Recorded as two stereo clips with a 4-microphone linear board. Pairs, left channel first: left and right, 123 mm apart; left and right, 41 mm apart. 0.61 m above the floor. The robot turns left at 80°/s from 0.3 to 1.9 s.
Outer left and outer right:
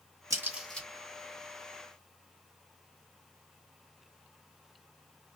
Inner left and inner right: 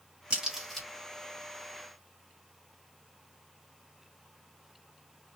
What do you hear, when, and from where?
0.3 s a crack: 30° right (ahead or behind), 1.4 m; by 0.9 s 15° left (ahead or behind), 1.4 m